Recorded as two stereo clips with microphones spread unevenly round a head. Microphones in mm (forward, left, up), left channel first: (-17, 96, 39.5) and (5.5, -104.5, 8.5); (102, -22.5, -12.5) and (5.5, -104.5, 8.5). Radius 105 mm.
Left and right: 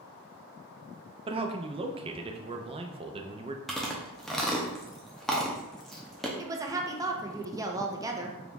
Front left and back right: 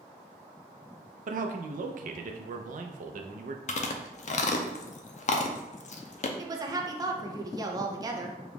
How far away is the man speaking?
About 0.5 m.